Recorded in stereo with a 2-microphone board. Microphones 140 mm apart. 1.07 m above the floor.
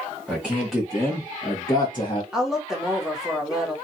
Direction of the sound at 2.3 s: 5° right (ahead or behind).